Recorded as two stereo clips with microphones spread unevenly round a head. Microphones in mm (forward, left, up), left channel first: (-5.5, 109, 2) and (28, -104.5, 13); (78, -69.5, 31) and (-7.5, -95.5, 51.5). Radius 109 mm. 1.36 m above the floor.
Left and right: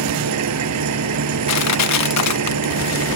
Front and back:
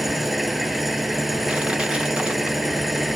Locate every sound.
0.0 s an engine running: 75° right
1.5 s crushing: 110° left